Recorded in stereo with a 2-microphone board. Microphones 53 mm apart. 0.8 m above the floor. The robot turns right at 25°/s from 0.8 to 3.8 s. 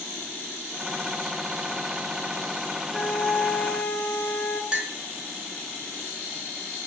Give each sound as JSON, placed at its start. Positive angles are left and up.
{"t": 2.9, "sound": "a flute", "side_deg": 20, "distance_m": 0.6}
{"t": 4.7, "sound": "a clink", "side_deg": -20, "distance_m": 0.5}